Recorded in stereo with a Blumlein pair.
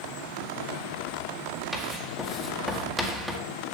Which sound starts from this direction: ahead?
Writing, at 1.7 s.